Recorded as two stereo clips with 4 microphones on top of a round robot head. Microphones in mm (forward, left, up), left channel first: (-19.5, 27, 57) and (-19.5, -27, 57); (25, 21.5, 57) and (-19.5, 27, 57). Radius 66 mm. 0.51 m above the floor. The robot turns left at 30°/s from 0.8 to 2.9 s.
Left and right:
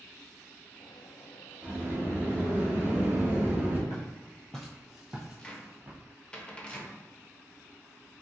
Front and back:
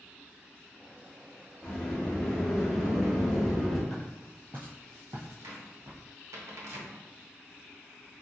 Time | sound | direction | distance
1.6 | a sliding door | 70° right | 1.4 m
3.9 | footsteps | 80° left | 0.5 m
5.4 | a cupboard door | 160° left | 0.7 m